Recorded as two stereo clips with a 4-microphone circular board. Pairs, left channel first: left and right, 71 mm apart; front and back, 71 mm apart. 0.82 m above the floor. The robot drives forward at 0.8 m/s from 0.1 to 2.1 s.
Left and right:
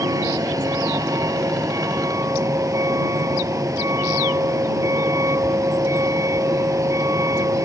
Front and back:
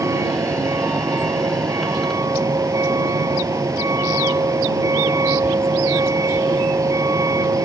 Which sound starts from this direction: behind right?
A vehicle, at 0.0 s.